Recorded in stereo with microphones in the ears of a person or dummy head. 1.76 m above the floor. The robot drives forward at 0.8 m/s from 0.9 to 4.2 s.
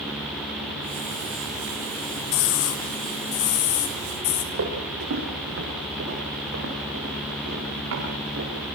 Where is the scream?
70° left (ahead or behind), 2.5 m; by 4.4 s 45° left (ahead or behind), 3 m.